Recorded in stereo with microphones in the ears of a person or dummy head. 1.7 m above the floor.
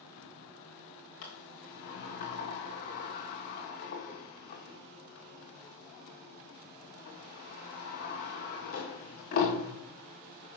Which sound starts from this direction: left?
A sliding door, at 1.2 s.